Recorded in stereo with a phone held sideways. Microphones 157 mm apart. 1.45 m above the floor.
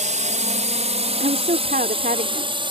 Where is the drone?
50° right (ahead or behind); by 2.7 s 30° right (ahead or behind).